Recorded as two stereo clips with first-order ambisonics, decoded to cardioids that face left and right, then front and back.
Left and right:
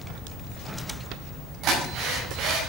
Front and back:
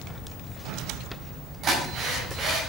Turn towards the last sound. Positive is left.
turn(degrees=-125)